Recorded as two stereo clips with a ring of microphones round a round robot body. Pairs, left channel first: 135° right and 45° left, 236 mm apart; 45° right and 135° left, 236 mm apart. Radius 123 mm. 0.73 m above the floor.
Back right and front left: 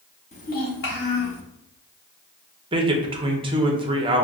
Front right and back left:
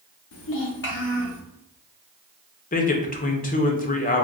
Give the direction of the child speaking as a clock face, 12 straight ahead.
2 o'clock.